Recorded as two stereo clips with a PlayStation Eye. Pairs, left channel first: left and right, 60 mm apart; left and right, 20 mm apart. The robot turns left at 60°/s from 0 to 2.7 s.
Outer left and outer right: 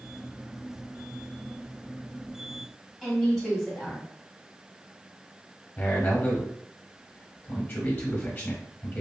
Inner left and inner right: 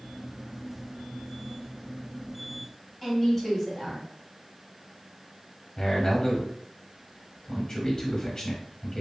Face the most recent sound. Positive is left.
turn(degrees=25)  # may be behind; listen again after turning